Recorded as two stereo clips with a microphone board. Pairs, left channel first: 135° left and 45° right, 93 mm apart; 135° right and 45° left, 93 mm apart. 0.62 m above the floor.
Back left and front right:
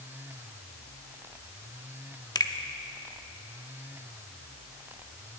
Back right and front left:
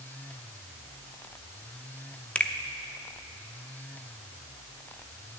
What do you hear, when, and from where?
2.4 s a finger snap: 155° left, 0.8 m